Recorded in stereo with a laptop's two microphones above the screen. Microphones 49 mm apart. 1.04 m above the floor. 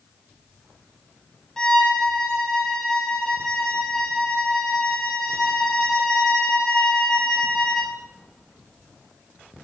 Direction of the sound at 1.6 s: 15° left (ahead or behind).